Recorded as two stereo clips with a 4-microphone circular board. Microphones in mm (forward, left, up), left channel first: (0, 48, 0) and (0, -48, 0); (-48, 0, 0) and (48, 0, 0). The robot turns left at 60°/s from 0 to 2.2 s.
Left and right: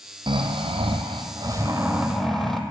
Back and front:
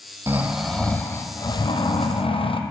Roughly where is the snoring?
Ahead right.